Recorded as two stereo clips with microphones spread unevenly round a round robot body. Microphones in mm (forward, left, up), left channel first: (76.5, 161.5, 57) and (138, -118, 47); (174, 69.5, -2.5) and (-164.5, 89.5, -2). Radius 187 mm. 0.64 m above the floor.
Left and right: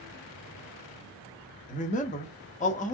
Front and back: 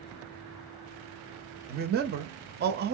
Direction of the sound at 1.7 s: 145° left.